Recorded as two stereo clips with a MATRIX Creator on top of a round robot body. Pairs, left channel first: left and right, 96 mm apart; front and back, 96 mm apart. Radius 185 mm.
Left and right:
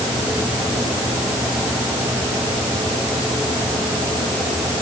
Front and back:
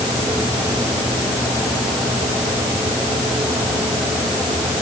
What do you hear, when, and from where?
Only background noise.